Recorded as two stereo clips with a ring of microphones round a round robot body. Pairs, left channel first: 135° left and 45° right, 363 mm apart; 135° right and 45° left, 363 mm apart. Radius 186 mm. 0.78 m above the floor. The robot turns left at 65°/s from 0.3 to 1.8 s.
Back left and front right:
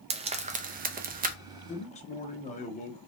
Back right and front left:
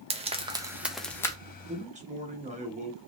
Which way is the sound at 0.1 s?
Straight ahead.